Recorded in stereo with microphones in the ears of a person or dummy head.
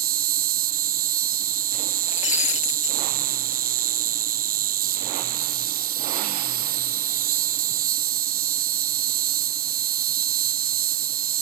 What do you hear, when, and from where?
0.0 s an insect: 35° right (ahead or behind)
2.1 s breaking glass: 35° left (ahead or behind)